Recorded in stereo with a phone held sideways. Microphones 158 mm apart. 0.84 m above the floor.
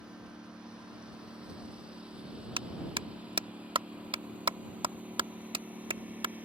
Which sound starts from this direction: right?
A clap, at 2.6 s.